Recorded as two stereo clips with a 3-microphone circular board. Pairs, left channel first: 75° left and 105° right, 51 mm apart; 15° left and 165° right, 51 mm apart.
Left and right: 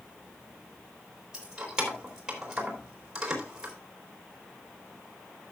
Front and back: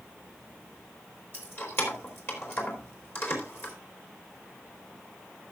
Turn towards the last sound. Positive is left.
turn(degrees=-30)